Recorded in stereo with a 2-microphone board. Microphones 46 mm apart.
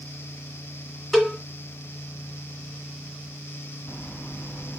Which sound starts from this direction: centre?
A cowbell, at 1.1 s.